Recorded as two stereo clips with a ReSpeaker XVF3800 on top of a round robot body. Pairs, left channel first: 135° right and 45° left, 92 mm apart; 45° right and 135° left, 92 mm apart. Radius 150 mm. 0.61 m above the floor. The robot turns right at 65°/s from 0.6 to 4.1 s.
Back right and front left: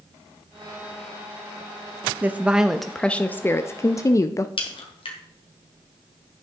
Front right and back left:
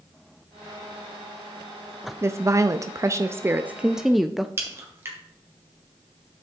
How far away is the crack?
About 1.6 m.